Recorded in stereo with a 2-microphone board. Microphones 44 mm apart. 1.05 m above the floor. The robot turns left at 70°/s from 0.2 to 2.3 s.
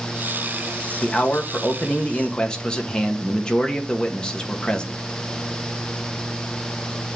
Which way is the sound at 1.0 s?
125° left.